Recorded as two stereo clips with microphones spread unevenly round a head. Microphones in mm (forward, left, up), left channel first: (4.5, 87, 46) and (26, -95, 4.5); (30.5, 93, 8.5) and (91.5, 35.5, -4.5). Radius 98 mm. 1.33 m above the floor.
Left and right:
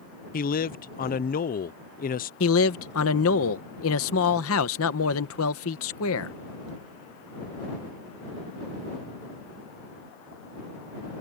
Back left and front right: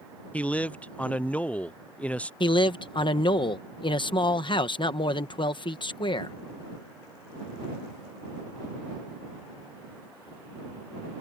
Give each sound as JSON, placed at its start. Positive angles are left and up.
{"t": 0.3, "sound": "a man speaking", "azimuth_deg": 60}
{"t": 2.4, "sound": "a man speaking", "azimuth_deg": 110}